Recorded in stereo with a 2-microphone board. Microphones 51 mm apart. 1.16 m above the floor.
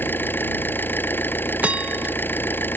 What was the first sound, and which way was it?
An engine running, 40° left (ahead or behind).